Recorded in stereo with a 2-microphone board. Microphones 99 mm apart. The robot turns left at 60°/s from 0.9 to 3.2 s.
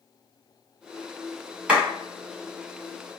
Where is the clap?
10° right (ahead or behind), 1.7 m; by 1.8 s 20° right (ahead or behind), 1.7 m.